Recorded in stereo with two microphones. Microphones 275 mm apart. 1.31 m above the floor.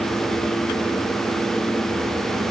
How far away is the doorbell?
I don't hear a doorbell.